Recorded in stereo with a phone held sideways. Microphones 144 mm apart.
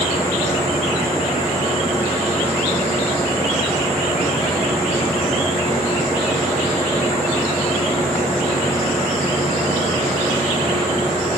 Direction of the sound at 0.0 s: 40° left (ahead or behind).